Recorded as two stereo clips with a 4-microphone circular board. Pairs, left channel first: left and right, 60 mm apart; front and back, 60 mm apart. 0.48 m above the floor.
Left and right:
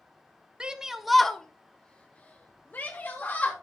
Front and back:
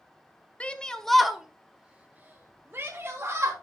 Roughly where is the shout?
Ahead right.